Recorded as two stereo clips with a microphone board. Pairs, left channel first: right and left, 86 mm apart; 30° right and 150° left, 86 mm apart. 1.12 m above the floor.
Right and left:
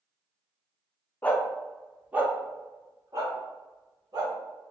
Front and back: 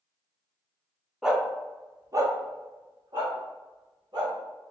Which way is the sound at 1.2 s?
130° right.